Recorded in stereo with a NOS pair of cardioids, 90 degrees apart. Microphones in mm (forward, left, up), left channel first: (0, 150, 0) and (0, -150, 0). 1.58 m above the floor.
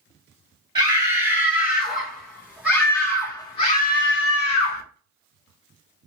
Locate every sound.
0.8 s a scream: 20° right, 1.9 m; by 4.8 s 75° left, 0.7 m